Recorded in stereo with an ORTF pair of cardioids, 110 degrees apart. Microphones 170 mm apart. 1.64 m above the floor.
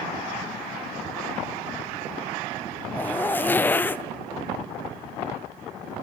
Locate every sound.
2.9 s a zipper: 10° left, 0.6 m